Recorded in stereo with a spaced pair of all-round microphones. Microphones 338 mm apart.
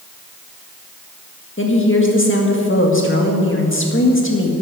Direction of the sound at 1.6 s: 35° left (ahead or behind).